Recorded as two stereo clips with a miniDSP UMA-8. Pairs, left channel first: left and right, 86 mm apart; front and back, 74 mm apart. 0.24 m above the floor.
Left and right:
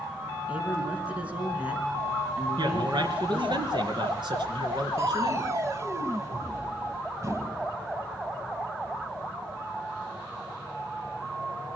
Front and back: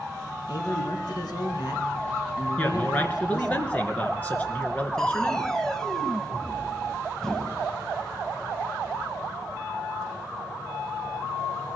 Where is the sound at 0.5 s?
15° right, 3.5 m.